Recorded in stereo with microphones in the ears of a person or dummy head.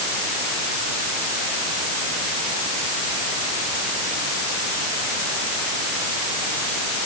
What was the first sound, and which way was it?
Only background noise.